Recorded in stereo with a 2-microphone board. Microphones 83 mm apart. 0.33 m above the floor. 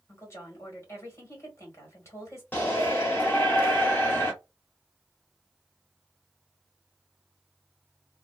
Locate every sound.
0.1 s a woman speaking: 35° left (ahead or behind), 1.7 m
2.5 s a shout: 25° left (ahead or behind), 0.9 m